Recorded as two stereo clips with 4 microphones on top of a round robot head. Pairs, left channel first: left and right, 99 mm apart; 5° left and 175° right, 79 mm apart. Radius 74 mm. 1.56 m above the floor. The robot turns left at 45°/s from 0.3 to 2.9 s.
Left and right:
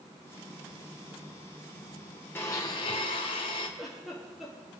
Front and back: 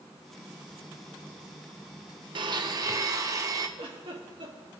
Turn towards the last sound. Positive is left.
turn(degrees=180)